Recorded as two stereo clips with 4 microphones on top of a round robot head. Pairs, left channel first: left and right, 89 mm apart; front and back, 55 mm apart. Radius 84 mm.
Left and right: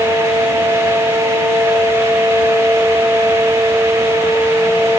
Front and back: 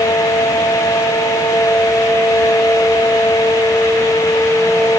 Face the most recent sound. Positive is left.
No sound to turn to.